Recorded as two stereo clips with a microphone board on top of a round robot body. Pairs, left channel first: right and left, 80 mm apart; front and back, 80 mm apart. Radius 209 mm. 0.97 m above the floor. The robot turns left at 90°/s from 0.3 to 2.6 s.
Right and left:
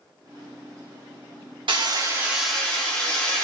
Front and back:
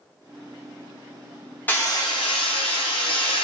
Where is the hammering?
70° left, 1.0 m; by 3.4 s 15° right, 1.0 m.